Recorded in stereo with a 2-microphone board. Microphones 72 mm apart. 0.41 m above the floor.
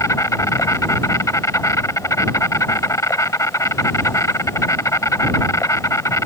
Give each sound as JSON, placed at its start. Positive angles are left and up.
{"t": 0.0, "sound": "an insect", "side_deg": 50}